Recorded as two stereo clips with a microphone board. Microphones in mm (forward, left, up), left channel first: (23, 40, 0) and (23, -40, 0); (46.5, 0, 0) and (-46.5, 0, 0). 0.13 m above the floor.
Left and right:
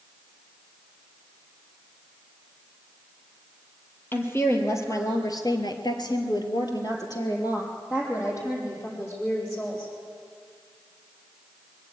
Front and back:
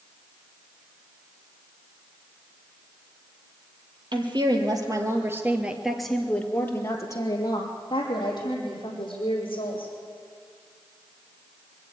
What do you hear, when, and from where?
4.1 s a woman speaking: 150° left, 3.5 m; by 9.9 s 30° left, 6.5 m